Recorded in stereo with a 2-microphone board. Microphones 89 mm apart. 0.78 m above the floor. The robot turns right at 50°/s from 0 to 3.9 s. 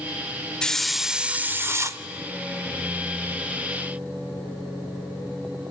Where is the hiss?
165° left, 0.5 m; by 2.0 s 125° right, 0.5 m.